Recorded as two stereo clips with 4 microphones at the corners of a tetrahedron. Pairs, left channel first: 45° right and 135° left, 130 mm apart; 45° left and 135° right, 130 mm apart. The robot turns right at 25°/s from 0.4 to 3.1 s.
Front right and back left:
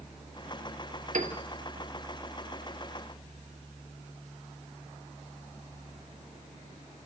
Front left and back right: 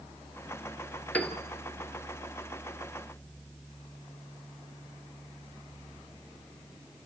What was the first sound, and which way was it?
A piano, 125° left.